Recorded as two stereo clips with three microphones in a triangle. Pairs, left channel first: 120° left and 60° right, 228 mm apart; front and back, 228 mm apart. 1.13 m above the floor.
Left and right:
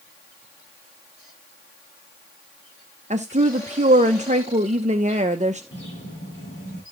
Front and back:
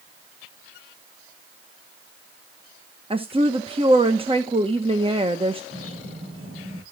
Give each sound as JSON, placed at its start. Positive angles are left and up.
{"t": 3.1, "sound": "a woman speaking", "azimuth_deg": -120, "distance_m": 0.9}
{"t": 5.7, "sound": "a bird", "azimuth_deg": 160, "distance_m": 5.0}